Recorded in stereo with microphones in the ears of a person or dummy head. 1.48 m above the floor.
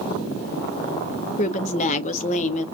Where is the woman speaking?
35° left (ahead or behind), 0.7 m.